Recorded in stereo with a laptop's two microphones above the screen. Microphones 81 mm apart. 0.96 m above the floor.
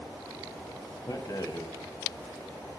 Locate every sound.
1.1 s a rattle: 50° left (ahead or behind), 1.3 m